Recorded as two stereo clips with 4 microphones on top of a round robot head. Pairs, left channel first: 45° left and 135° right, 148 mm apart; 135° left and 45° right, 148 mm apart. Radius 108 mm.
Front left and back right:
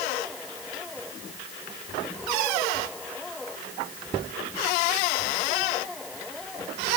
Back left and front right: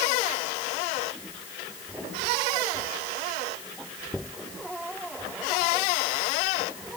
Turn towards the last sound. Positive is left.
No sound to turn to.